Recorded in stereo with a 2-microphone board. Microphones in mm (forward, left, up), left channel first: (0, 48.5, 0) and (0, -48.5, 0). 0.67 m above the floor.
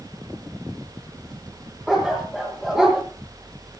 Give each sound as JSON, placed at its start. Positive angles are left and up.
{"t": 1.9, "sound": "a dog barking", "side_deg": -5, "distance_m": 6.0}